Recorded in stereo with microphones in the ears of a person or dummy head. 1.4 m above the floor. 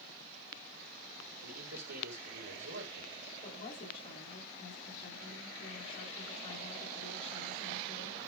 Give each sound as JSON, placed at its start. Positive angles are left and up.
{"t": 1.4, "sound": "a man speaking", "side_deg": -65, "distance_m": 4.5}
{"t": 3.4, "sound": "a woman speaking", "side_deg": 30, "distance_m": 3.5}